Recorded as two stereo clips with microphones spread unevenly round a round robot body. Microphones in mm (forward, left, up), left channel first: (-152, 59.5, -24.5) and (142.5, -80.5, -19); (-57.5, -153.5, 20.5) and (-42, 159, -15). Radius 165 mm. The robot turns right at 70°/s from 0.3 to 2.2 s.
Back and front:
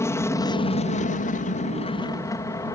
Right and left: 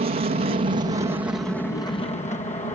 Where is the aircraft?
85° left; by 2.8 s 140° right.